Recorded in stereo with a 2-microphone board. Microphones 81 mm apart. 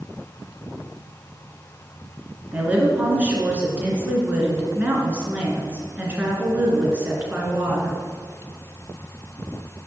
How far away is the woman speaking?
About 2.5 m.